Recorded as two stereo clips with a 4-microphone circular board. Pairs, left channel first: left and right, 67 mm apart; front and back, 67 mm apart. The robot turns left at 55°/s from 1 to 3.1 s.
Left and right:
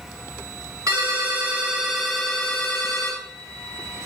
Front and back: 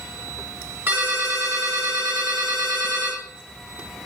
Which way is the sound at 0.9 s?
125° right.